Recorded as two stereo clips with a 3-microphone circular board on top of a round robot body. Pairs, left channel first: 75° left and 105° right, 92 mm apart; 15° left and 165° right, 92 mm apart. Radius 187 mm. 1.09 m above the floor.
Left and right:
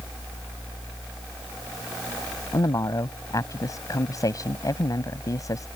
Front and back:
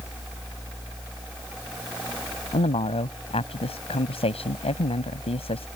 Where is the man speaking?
20° left.